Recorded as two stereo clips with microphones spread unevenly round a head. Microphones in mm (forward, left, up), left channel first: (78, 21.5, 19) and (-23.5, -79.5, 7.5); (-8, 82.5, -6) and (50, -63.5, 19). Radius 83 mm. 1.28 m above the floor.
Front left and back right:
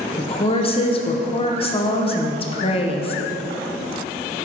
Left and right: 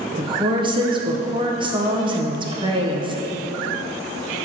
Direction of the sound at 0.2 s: 5° right.